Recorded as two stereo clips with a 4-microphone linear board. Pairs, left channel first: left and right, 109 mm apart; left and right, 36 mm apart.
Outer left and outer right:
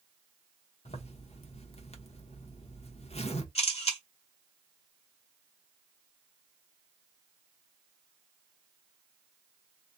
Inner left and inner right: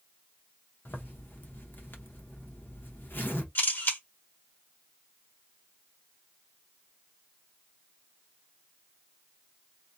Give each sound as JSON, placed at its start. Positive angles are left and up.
{"t": 0.8, "sound": "a zipper", "side_deg": 70, "distance_m": 0.9}
{"t": 3.5, "sound": "a camera shutter", "side_deg": 70, "distance_m": 1.4}